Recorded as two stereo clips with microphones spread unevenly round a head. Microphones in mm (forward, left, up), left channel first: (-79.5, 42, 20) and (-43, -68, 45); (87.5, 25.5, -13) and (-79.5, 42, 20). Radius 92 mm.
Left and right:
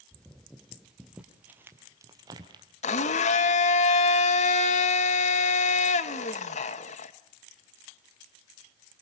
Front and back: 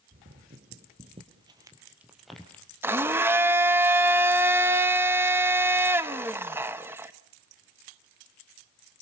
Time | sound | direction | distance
0.1 | footsteps | 165° right | 3.5 m
2.8 | a blender | 115° left | 1.1 m